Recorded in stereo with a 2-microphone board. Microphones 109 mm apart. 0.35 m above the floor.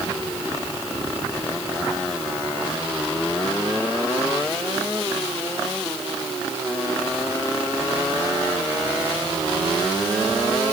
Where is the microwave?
No microwave in this recording.